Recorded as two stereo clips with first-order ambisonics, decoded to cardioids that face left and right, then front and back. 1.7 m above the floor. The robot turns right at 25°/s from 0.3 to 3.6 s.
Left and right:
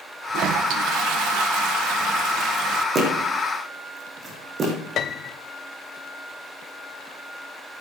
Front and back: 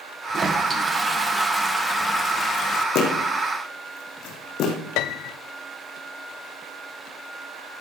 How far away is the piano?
About 0.6 m.